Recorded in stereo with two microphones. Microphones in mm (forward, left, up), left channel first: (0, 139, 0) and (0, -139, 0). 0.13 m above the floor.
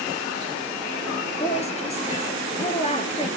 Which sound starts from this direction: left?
A woman speaking, at 1.4 s.